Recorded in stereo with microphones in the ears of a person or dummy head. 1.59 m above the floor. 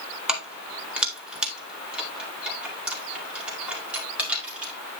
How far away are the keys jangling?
About 2.5 m.